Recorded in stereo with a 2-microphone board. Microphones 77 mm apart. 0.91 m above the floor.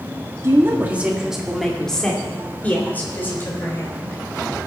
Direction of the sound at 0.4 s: 35° right (ahead or behind).